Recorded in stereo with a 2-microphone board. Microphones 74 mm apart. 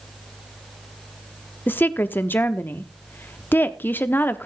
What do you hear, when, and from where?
1.7 s a woman speaking: 25° left (ahead or behind), 0.8 m